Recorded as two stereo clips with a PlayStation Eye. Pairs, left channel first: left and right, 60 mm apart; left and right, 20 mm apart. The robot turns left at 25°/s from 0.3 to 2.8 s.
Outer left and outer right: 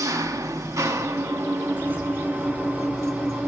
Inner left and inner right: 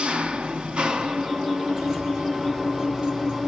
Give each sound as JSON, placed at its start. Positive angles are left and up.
{"t": 0.0, "sound": "an engine running", "azimuth_deg": -90, "distance_m": 2.0}
{"t": 1.7, "sound": "keys jangling", "side_deg": -25, "distance_m": 2.5}